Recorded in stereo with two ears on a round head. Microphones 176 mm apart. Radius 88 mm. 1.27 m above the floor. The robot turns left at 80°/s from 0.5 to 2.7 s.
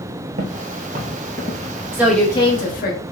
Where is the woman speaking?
165° right, 1.0 m; by 3.0 s 130° left, 1.0 m.